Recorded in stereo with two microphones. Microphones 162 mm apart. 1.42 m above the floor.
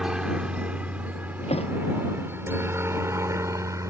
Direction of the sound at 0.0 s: 5° right (ahead or behind).